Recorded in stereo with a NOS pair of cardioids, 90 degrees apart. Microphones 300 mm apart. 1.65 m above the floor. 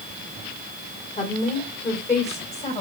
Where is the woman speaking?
25° left, 5.5 m; by 2.8 s 20° left, 6.5 m.